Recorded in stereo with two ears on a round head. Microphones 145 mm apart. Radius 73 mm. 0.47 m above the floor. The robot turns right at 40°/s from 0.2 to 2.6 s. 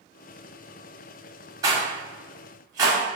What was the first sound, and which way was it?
A rattle, 20° right (ahead or behind).